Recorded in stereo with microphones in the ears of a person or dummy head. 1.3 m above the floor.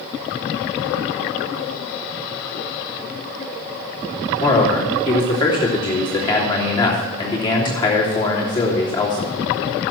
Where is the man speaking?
25° left (ahead or behind), 3 m.